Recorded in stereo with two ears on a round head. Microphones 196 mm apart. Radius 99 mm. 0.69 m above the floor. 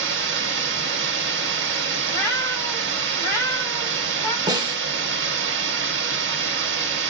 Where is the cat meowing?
15° left (ahead or behind), 1.7 m.